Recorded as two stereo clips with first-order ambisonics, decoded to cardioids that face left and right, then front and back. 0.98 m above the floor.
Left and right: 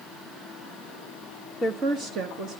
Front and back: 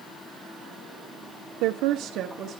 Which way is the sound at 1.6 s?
175° left.